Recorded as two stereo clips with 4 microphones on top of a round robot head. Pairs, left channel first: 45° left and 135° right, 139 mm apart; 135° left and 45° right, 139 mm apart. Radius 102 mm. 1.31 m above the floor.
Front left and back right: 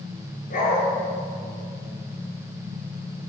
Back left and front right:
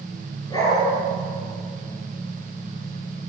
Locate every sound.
0.5 s a dog barking: 70° left, 9 m